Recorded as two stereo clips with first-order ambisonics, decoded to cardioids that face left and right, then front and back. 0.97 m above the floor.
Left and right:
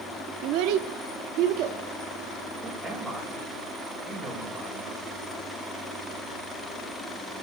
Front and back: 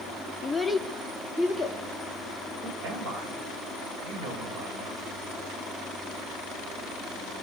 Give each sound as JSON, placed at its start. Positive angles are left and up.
{"t": 0.4, "sound": "a child speaking", "azimuth_deg": -80, "distance_m": 0.6}
{"t": 2.6, "sound": "a man speaking", "azimuth_deg": -160, "distance_m": 5.5}